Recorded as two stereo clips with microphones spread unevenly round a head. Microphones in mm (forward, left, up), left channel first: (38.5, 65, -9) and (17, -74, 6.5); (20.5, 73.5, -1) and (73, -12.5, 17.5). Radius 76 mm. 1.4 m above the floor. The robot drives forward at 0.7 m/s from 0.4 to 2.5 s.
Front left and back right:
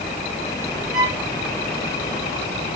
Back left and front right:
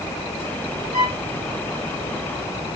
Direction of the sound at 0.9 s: 90° right.